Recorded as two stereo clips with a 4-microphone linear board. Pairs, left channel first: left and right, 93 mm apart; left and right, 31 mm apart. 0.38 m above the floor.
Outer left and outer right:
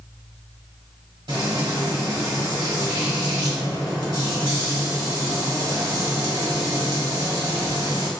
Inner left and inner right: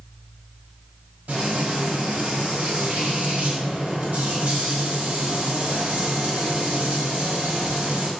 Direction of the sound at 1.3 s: 65° right (ahead or behind).